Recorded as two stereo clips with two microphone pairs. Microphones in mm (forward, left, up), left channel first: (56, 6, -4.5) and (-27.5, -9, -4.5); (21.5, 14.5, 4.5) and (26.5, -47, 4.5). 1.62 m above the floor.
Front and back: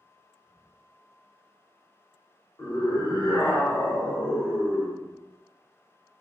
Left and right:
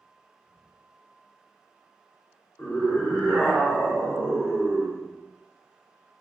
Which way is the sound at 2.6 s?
50° left.